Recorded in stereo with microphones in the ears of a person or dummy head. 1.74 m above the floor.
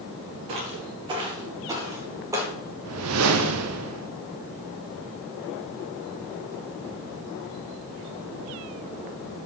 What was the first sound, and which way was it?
Footsteps, 30° right (ahead or behind).